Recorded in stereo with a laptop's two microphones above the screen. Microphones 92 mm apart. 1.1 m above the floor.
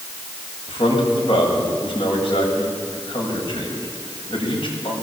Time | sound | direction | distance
0.7 | a man speaking | 75° left (ahead or behind) | 8 m